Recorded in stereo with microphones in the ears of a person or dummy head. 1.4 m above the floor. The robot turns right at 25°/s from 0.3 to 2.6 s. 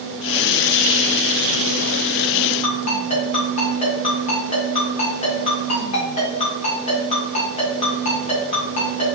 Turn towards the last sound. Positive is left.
turn(degrees=40)  # may be behind; listen again after turning